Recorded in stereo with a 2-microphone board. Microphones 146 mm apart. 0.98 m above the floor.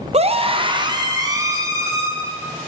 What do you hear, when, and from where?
0.1 s a scream: 45° right (ahead or behind), 0.6 m; by 2.1 s 20° right (ahead or behind), 1.7 m